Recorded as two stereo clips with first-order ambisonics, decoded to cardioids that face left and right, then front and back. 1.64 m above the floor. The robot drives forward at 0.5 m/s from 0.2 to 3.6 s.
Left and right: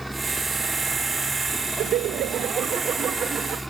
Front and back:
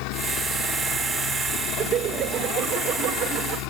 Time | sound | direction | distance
0.0 | a helicopter | 5° right | ?
1.8 | laughter | 125° right | ?